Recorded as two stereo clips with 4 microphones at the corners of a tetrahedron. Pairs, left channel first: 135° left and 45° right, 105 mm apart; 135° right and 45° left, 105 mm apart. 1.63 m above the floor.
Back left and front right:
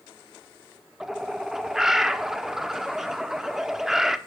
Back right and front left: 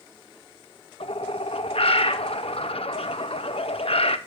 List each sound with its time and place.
1.0 s a bird: 130° right, 0.8 m